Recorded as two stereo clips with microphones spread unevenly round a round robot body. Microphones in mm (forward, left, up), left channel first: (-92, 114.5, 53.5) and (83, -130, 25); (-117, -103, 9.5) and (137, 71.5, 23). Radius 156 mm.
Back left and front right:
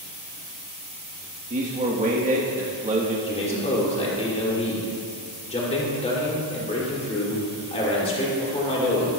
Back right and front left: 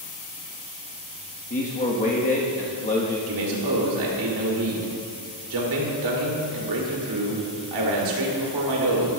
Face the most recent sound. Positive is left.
turn(degrees=55)